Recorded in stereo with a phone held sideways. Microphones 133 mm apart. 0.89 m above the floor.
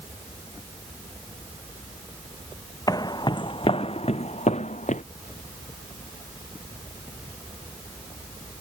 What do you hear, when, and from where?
2.9 s footsteps: 30° left (ahead or behind); by 5.0 s 65° left (ahead or behind)